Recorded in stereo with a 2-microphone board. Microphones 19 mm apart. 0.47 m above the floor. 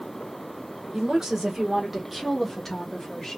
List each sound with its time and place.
0.9 s a woman speaking: 40° right (ahead or behind), 1.8 m; by 3.4 s 30° left (ahead or behind), 1.4 m